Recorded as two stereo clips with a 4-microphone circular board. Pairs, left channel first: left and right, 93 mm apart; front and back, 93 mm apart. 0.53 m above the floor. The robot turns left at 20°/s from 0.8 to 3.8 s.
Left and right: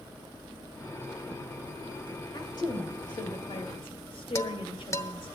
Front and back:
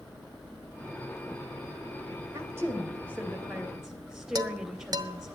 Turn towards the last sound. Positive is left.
turn(degrees=140)